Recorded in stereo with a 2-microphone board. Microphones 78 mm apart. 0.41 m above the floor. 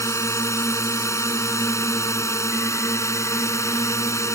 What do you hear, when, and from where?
0.0 s a drone: 40° left (ahead or behind)